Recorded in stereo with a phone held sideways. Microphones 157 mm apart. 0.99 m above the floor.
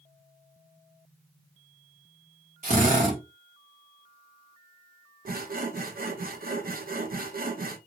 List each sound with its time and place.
2.6 s a drill: 55° right (ahead or behind), 1.4 m
5.2 s sawing: 70° right (ahead or behind), 0.6 m